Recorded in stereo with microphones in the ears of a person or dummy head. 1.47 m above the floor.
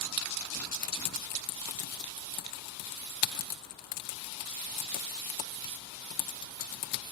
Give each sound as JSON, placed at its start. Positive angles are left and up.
{"t": 0.7, "sound": "typing on a keyboard", "side_deg": 50, "distance_m": 0.8}